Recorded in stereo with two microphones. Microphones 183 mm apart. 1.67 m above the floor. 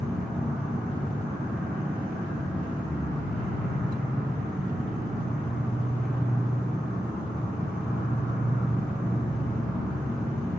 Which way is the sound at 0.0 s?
5° right (ahead or behind).